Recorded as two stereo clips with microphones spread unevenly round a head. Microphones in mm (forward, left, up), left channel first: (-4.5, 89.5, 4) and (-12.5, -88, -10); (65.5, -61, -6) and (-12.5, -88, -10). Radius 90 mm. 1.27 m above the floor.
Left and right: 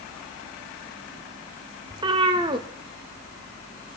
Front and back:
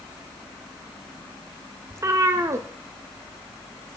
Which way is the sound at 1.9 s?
145° right.